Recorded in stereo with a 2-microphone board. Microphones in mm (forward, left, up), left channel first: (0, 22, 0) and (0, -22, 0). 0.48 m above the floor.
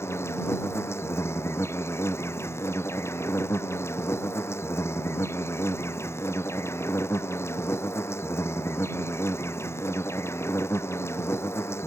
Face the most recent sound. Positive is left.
turn(degrees=75)  # may be behind; listen again after turning